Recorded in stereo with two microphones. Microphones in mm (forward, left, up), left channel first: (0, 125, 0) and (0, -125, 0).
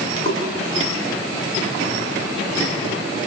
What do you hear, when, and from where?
0.2 s a splash: 55° right (ahead or behind), 7 m